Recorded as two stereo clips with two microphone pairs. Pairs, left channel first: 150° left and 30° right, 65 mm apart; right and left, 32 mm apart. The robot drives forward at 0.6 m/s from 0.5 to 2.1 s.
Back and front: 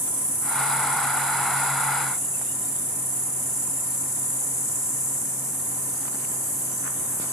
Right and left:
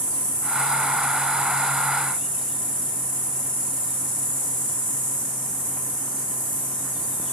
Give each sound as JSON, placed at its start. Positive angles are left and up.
{"t": 0.0, "sound": "an insect", "azimuth_deg": -145, "distance_m": 1.3}